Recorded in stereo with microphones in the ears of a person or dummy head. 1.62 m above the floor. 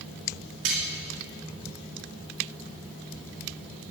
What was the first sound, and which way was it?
Cutlery clinking, 60° right (ahead or behind).